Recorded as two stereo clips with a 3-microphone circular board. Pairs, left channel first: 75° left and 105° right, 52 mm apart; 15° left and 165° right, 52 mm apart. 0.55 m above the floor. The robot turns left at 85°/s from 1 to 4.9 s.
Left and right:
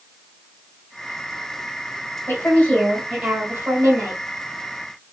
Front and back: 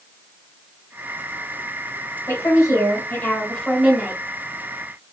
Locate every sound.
2.3 s a woman speaking: 40° left, 1.9 m; by 4.2 s 125° right, 1.9 m